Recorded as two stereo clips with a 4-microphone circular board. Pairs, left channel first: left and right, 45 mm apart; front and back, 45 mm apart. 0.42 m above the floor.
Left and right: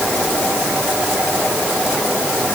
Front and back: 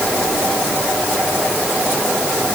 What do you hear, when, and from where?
Only background noise.